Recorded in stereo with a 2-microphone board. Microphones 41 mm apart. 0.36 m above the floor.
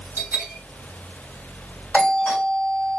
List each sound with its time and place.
0.2 s a bell: 70° right (ahead or behind), 0.6 m
1.9 s a doorbell: 25° left (ahead or behind), 2.0 m